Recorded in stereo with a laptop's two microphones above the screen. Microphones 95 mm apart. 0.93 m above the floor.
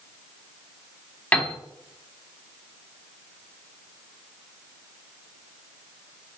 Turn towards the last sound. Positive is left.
turn(degrees=15)  # may be behind; listen again after turning